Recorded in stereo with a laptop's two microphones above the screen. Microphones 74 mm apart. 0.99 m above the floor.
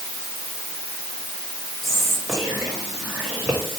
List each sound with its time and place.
1.8 s whispering: 5° left (ahead or behind), 2 m